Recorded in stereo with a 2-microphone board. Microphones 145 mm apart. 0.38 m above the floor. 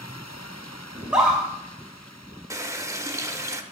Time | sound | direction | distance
0.9 | a scream | 5° right (ahead or behind) | 1.9 m
2.5 | a running tap | 20° right (ahead or behind) | 0.6 m